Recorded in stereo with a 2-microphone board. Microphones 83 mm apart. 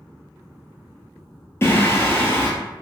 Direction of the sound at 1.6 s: 30° left (ahead or behind).